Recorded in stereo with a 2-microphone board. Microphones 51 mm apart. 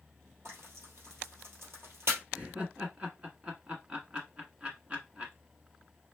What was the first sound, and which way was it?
Frying, 55° right (ahead or behind).